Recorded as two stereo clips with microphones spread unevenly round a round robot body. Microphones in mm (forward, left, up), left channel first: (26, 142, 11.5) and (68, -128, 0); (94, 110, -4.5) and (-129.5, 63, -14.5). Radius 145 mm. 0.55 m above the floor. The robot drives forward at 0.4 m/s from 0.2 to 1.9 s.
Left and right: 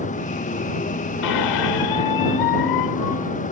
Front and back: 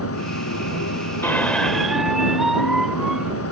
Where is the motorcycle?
35° left.